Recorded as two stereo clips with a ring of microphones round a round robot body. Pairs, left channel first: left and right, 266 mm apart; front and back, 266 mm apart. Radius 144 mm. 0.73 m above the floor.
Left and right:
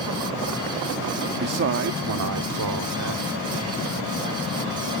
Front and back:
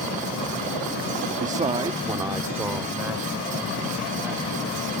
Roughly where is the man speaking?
Behind right.